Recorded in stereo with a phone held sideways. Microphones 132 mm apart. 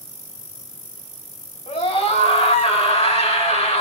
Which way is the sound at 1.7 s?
50° left (ahead or behind).